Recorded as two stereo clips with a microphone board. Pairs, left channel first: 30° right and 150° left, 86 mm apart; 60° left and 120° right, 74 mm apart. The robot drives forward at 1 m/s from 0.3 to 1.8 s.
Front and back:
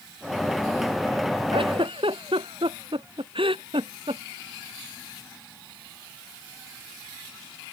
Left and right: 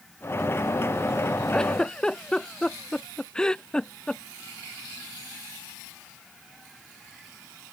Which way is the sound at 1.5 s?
140° left.